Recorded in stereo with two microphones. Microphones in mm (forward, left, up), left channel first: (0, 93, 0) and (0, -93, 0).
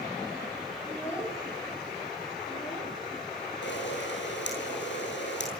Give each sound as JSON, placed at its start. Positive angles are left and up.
{"t": 0.8, "sound": "a child speaking", "side_deg": 15, "distance_m": 5.5}
{"t": 3.6, "sound": "a camera shutter", "side_deg": 80, "distance_m": 8.5}